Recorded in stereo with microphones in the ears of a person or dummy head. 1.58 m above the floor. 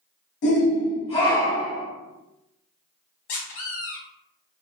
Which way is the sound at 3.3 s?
35° left (ahead or behind).